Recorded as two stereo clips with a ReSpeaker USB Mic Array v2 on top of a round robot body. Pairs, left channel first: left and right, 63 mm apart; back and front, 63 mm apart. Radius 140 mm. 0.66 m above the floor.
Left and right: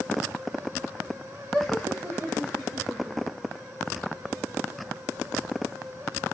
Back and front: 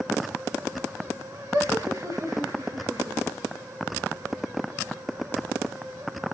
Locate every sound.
1.5 s laughter: 5° right, 2.5 m; by 3.4 s 25° right, 4 m